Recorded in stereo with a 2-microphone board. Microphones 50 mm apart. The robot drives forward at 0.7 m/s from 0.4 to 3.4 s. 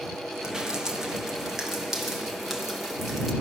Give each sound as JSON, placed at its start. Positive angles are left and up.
{"t": 0.4, "sound": "dripping", "side_deg": -15, "distance_m": 1.4}